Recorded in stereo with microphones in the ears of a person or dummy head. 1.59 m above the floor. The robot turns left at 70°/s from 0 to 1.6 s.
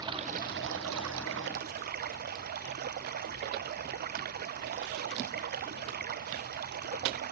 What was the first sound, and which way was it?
Running water, 25° right.